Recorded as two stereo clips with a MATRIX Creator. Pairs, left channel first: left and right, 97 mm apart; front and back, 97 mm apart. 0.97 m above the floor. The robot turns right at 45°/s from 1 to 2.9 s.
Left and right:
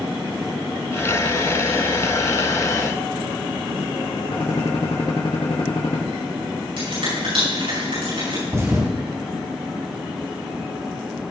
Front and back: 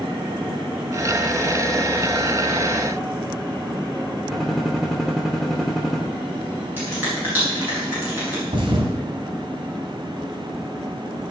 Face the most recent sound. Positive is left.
turn(degrees=-150)